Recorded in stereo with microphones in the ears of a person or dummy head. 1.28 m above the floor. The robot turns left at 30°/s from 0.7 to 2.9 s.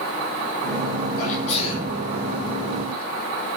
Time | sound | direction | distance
1.2 | a sneeze | 50° left (ahead or behind) | 6.5 m